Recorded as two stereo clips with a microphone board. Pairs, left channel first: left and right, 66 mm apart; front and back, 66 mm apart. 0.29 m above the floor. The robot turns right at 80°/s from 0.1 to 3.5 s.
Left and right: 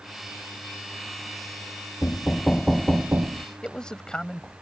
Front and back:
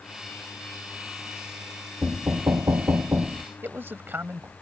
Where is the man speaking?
160° left.